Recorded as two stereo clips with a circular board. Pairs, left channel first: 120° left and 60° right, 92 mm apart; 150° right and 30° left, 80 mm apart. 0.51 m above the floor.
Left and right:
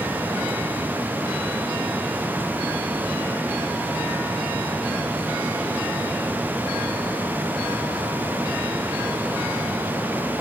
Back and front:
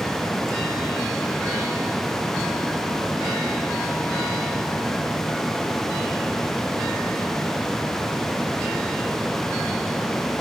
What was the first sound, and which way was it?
Only background noise.